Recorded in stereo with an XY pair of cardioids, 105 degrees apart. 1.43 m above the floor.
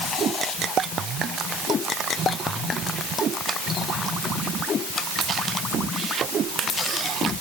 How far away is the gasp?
I don't hear a gasp.